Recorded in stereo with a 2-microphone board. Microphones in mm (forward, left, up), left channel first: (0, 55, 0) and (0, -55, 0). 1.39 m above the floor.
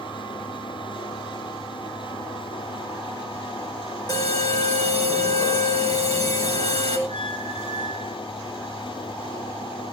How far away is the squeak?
About 3.5 m.